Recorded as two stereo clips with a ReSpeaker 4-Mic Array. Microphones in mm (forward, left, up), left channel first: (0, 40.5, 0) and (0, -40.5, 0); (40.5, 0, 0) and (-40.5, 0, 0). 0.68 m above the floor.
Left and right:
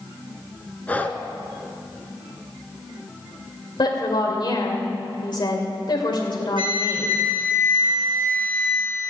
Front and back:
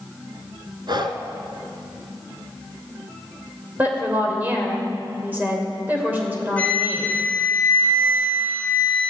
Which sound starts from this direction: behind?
Breathing, at 0.9 s.